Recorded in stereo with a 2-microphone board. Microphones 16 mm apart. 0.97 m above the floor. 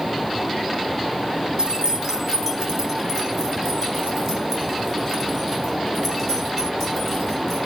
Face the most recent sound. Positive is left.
turn(degrees=-15)  # may be behind; listen again after turning